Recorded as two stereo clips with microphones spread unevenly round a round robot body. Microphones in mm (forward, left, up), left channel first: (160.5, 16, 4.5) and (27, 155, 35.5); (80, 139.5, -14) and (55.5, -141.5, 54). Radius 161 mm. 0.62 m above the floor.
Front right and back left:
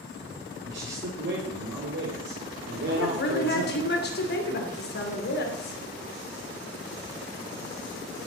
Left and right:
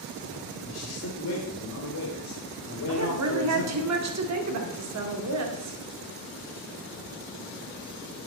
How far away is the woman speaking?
About 2 m.